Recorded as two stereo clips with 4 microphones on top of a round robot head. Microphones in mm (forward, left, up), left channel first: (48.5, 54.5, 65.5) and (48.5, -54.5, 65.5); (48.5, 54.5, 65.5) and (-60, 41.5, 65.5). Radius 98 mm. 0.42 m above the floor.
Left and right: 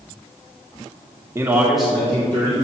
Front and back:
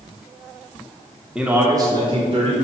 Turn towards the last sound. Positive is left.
turn(degrees=155)